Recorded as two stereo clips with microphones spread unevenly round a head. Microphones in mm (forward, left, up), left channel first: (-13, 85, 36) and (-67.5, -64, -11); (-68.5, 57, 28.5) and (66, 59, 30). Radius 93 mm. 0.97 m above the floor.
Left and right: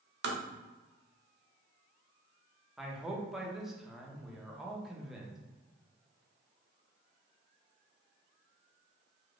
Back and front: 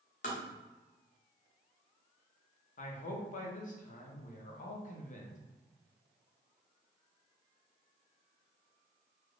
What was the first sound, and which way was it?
Tapping, 130° right.